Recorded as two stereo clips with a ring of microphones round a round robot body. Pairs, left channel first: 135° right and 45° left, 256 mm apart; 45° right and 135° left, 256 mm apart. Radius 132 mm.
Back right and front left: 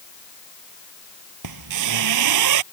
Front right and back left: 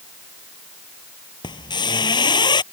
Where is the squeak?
30° left.